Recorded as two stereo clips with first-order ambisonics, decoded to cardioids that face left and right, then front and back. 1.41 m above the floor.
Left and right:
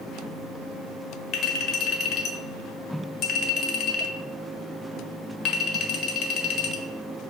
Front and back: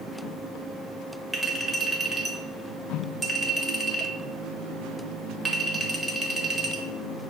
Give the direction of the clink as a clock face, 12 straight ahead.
9 o'clock.